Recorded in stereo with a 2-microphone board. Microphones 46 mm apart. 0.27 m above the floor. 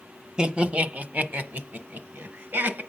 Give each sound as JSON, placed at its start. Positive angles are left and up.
{"t": 0.4, "sound": "laughter", "side_deg": -20, "distance_m": 0.9}